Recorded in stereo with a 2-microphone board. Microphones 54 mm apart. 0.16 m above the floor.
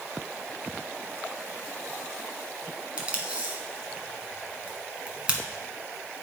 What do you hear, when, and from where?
3.0 s tape being pulled: 20° right (ahead or behind), 1.4 m